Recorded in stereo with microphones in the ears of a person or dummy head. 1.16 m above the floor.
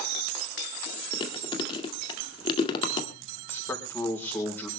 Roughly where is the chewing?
Left.